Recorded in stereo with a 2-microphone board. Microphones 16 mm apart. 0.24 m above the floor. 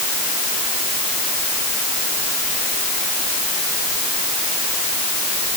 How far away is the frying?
I don't hear frying.